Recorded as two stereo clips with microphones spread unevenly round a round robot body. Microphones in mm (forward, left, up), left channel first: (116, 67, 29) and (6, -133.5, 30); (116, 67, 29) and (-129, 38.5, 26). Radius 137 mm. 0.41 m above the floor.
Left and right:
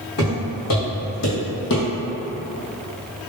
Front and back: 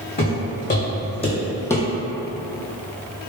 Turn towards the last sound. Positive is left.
turn(degrees=90)